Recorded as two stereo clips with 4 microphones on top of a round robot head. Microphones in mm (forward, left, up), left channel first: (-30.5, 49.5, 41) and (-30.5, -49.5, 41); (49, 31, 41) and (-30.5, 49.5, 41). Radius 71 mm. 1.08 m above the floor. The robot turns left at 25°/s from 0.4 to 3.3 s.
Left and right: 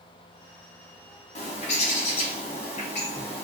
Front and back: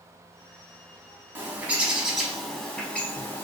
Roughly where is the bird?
Left.